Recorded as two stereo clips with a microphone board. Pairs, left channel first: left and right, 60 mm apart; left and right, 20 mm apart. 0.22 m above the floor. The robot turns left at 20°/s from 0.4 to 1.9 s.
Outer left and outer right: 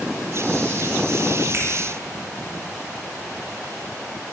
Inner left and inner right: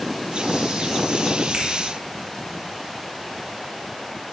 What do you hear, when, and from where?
1.5 s a finger snap: 50° right (ahead or behind), 1.7 m